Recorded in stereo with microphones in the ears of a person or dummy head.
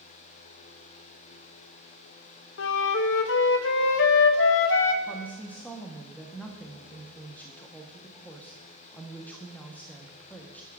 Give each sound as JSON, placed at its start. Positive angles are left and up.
{"t": 2.6, "sound": "a flute", "side_deg": 65, "distance_m": 0.7}
{"t": 5.0, "sound": "a woman speaking", "side_deg": 5, "distance_m": 1.1}